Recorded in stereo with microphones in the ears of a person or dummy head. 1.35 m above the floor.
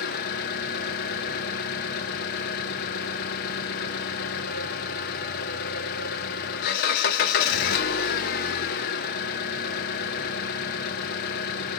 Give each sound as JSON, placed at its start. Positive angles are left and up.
{"t": 0.0, "sound": "an engine running", "side_deg": 55, "distance_m": 0.8}